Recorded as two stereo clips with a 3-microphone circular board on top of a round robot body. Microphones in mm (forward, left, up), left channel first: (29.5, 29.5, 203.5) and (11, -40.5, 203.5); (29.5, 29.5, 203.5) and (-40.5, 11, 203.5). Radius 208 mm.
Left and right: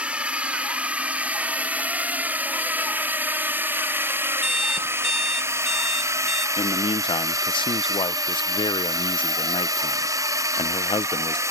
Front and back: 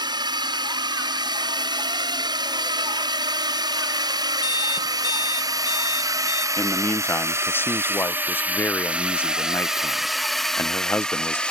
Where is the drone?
Straight behind; by 11.5 s 60° right.